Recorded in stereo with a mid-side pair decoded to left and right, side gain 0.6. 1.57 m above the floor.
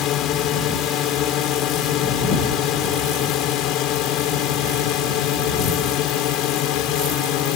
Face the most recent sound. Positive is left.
turn(degrees=70)